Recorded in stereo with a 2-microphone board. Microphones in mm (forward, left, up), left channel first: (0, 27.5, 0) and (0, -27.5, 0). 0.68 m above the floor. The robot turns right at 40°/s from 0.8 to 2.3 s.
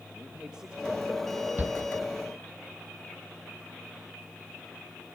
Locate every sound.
0.1 s a man speaking: 15° right (ahead or behind), 1.9 m; by 1.5 s 5° left (ahead or behind), 1.9 m
1.6 s a shout: 35° right (ahead or behind), 0.8 m; by 1.8 s 30° right (ahead or behind), 0.8 m